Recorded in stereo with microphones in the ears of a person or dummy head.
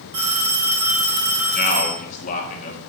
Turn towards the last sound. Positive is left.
turn(degrees=40)  # may be behind; listen again after turning